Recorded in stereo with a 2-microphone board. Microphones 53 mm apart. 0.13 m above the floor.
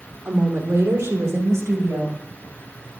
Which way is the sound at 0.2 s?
65° right (ahead or behind).